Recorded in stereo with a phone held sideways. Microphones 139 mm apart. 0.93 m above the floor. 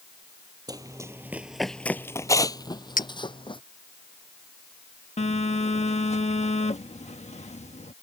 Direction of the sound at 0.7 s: 30° right (ahead or behind).